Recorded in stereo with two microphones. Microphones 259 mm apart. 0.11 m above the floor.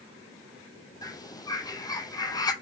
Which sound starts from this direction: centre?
A bird, at 1.0 s.